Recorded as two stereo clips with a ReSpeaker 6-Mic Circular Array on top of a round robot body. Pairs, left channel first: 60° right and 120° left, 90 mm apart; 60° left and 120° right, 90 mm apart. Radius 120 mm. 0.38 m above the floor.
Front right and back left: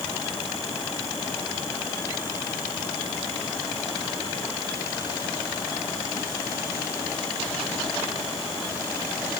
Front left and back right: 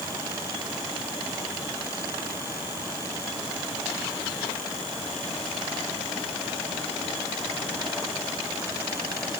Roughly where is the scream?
I don't hear a scream.